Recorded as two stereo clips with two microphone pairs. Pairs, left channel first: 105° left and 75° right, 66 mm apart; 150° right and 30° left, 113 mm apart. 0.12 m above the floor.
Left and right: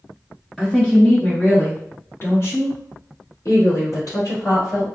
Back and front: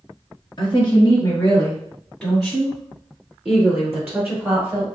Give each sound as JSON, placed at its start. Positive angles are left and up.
{"t": 0.6, "sound": "a woman speaking", "azimuth_deg": -165, "distance_m": 1.7}